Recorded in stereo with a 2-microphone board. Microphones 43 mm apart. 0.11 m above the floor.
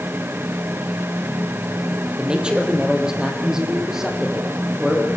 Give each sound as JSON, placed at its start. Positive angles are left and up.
{"t": 2.2, "sound": "a man speaking", "side_deg": -25, "distance_m": 3.5}